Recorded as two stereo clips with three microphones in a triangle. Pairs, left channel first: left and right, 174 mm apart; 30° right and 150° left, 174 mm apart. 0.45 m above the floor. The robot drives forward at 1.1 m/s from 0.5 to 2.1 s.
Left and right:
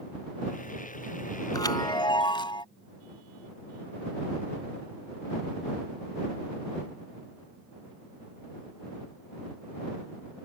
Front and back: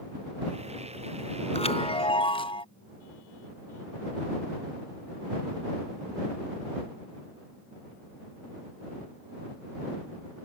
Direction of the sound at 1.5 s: 20° left.